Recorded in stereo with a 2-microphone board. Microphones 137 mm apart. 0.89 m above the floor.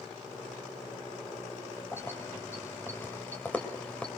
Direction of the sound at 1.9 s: 15° left (ahead or behind).